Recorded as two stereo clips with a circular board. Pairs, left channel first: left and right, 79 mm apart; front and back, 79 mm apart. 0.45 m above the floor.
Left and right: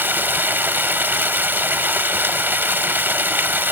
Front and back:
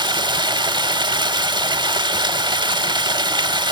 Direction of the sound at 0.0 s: 155° right.